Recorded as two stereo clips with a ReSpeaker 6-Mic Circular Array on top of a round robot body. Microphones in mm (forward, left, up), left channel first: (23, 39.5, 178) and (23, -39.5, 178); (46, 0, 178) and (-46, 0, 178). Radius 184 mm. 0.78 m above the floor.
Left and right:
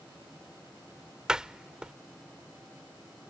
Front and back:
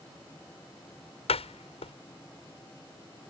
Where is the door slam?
10° right.